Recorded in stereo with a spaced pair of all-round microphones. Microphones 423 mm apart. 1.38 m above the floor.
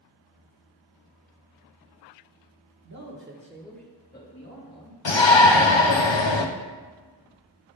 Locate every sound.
2.8 s a man speaking: 40° right (ahead or behind), 1.3 m; by 5.0 s 45° left (ahead or behind), 1.8 m
5.0 s a shout: 75° left (ahead or behind), 0.7 m